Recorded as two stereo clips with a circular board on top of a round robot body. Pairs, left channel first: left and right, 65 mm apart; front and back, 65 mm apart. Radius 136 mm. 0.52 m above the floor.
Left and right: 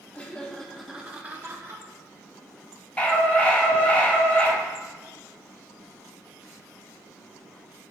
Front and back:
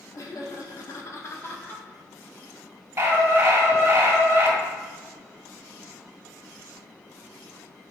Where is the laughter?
25° left, 1.5 m; by 1.8 s 60° right, 1.4 m.